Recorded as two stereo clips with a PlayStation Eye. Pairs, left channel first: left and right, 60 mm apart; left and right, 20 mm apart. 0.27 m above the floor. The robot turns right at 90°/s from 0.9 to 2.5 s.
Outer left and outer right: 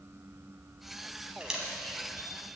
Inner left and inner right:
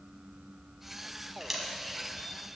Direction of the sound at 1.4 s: 20° right (ahead or behind).